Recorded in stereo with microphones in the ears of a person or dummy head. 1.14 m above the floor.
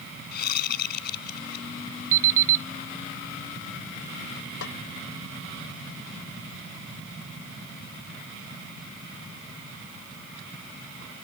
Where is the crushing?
I don't hear crushing.